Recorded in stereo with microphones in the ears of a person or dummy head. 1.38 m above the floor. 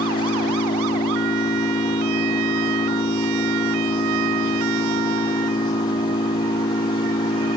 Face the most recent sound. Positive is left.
turn(degrees=25)  # may be behind; listen again after turning